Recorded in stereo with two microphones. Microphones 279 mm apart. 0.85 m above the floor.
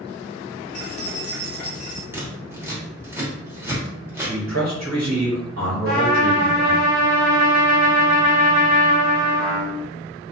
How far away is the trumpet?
About 1.4 m.